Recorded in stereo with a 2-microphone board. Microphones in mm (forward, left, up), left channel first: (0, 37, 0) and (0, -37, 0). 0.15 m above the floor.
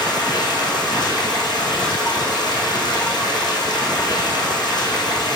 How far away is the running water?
About 1.9 m.